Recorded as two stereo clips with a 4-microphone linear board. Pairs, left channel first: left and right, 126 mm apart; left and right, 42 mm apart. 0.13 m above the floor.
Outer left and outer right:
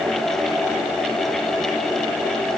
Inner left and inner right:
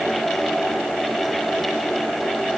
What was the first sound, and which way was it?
Only background noise.